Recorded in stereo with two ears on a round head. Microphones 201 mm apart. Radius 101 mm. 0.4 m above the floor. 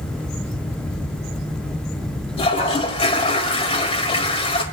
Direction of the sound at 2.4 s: 25° left (ahead or behind).